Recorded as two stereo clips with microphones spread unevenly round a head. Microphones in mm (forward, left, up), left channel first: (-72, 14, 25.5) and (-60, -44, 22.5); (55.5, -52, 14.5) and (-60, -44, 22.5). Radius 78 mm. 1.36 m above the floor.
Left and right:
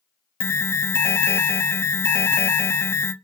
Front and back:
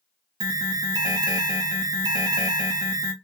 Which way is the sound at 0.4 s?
125° left.